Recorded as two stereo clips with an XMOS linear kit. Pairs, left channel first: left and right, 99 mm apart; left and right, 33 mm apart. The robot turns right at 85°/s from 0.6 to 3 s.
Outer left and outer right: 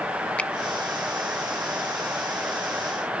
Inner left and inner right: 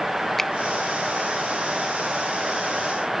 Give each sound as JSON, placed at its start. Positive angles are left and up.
{"t": 0.4, "sound": "a finger snap", "side_deg": 15, "distance_m": 0.5}